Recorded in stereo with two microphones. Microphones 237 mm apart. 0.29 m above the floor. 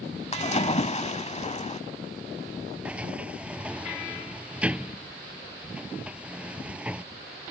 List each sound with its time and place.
0.3 s a splash: 30° left (ahead or behind)
2.9 s a sliding door: 5° right (ahead or behind)